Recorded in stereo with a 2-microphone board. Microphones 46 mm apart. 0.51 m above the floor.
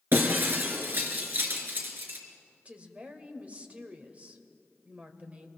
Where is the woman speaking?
30° right (ahead or behind), 2.0 m.